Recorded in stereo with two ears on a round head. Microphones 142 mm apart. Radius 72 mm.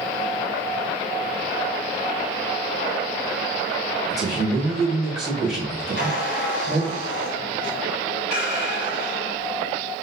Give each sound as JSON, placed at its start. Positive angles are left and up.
{"t": 4.1, "sound": "a man speaking", "side_deg": 0, "distance_m": 1.5}
{"t": 6.0, "sound": "a squeak", "side_deg": 55, "distance_m": 2.0}